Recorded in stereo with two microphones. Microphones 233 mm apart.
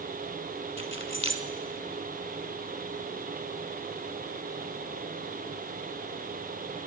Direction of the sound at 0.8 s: 55° left (ahead or behind).